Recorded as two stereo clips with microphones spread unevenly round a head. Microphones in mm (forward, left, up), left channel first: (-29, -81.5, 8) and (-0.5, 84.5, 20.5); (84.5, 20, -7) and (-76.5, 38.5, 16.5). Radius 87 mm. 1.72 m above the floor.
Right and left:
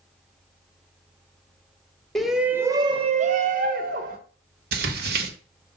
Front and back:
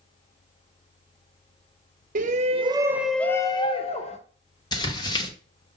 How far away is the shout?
About 0.9 m.